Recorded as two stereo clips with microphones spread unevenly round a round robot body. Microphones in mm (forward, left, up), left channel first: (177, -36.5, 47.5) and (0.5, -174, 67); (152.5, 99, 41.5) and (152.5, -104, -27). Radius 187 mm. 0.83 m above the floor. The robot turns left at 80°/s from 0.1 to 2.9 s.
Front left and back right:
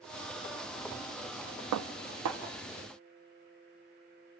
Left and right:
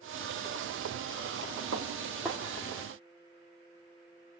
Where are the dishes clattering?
135° right, 0.6 m; by 2.4 s 170° left, 0.6 m.